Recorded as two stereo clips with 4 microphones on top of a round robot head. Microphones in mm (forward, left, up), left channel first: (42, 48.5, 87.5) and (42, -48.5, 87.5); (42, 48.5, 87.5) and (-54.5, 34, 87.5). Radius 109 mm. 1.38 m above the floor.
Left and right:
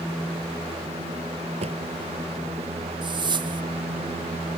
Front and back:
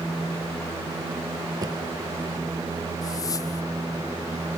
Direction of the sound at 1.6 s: 110° right.